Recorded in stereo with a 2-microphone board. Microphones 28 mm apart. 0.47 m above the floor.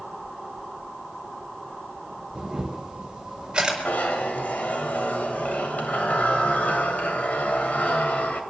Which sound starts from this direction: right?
A camera shutter, at 2.4 s.